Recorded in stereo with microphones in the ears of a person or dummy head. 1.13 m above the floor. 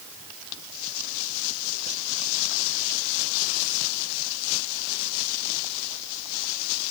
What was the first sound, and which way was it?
Only background noise.